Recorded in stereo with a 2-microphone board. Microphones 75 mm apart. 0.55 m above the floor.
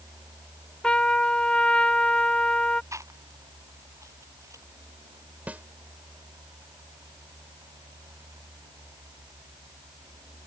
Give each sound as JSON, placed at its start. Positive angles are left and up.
{"t": 0.8, "sound": "a trumpet", "side_deg": 15}
{"t": 2.9, "sound": "chewing", "side_deg": -45}
{"t": 5.5, "sound": "a snare drum", "side_deg": -20}